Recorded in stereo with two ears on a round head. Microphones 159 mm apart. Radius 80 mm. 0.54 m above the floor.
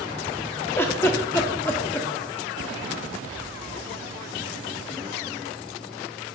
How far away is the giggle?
About 0.5 m.